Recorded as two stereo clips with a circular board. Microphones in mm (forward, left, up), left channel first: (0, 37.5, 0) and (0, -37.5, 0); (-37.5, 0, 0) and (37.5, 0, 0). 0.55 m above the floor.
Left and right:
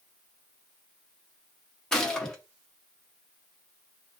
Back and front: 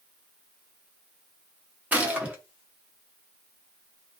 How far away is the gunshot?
About 0.7 m.